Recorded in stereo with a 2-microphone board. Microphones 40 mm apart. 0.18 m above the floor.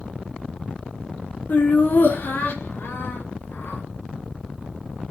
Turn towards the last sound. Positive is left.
turn(degrees=70)  # may be behind; listen again after turning